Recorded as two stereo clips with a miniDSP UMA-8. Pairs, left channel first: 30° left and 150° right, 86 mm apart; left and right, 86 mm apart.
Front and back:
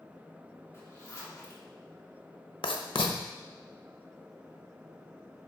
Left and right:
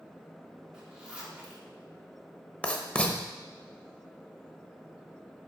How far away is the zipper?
About 1.6 m.